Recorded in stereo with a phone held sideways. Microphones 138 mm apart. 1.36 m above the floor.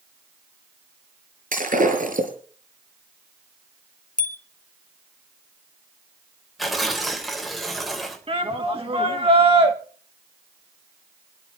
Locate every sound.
1.5 s breaking glass: 80° right, 6 m
4.2 s a bicycle bell: 75° left (ahead or behind), 2.5 m
6.6 s tearing paper: centre (ahead or behind), 3.5 m
8.3 s a shout: 45° right (ahead or behind), 2.5 m